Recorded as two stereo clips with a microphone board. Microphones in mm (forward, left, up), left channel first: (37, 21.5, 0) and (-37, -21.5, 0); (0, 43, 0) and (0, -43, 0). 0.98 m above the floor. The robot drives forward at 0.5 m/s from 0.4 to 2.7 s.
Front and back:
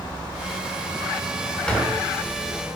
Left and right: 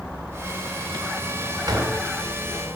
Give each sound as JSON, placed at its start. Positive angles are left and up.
{"t": 1.7, "sound": "a door slam", "azimuth_deg": -50, "distance_m": 1.8}